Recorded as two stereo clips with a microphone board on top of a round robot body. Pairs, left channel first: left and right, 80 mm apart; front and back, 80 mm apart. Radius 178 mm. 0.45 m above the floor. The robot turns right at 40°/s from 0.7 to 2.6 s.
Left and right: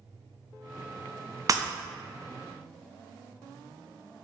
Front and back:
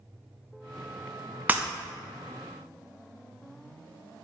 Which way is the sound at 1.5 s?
115° right.